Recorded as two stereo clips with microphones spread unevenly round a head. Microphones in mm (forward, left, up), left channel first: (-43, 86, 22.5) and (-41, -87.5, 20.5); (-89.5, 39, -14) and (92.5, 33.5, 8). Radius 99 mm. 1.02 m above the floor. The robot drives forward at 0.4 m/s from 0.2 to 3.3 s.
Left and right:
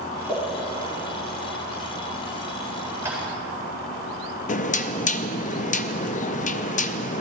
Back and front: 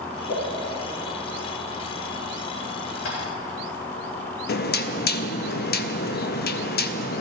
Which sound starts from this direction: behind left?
Knocking, at 4.5 s.